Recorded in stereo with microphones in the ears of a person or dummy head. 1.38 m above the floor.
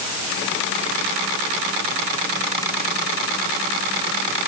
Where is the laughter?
I don't hear laughter.